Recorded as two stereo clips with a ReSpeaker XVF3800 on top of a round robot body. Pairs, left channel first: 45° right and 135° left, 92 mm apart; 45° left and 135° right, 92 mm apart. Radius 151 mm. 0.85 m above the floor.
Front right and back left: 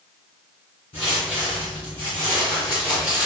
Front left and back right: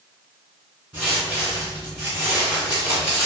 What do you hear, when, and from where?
0.9 s footsteps: 60° right, 1.6 m; by 3.3 s 135° right, 0.9 m